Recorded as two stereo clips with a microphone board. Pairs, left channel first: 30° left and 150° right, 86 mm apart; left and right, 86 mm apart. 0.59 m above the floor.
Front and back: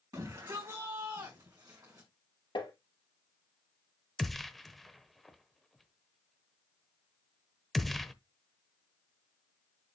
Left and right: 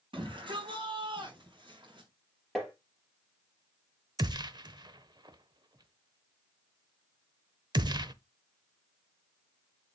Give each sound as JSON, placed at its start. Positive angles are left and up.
{"t": 0.1, "sound": "a shout", "azimuth_deg": -105, "distance_m": 4.5}
{"t": 2.5, "sound": "tapping", "azimuth_deg": 5, "distance_m": 3.5}
{"t": 4.2, "sound": "a gunshot", "azimuth_deg": -60, "distance_m": 0.7}